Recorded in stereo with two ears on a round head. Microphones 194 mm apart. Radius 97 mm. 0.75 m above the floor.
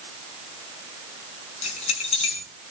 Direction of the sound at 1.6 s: 30° left (ahead or behind).